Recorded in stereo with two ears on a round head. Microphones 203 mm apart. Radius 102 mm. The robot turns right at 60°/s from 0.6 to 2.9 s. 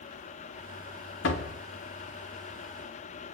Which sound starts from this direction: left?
A door slam, at 1.2 s.